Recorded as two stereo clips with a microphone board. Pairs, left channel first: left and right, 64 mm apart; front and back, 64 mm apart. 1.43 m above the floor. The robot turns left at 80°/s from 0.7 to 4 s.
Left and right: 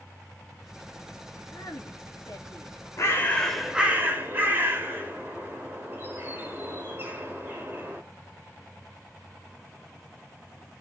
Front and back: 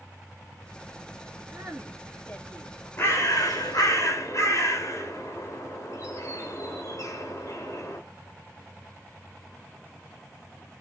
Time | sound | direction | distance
1.5 | a woman speaking | 130° left | 2.5 m
3.0 | a bird | 50° left | 3 m